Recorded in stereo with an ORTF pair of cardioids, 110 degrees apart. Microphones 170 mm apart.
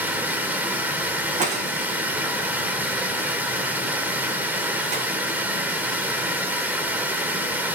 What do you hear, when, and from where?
0.0 s running water: 10° right, 2.5 m
1.4 s breaking glass: 45° right, 4 m